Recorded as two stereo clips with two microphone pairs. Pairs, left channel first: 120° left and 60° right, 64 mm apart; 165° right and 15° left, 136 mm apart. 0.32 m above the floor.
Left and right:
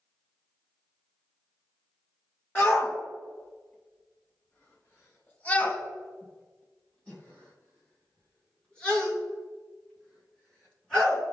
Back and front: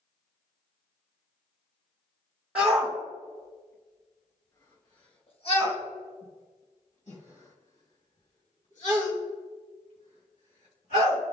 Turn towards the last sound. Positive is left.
turn(degrees=-160)